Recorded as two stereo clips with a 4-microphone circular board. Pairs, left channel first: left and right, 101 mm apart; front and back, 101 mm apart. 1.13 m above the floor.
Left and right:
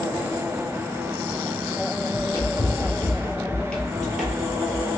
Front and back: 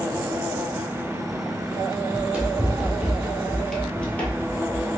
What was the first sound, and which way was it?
Running footsteps, 115° left.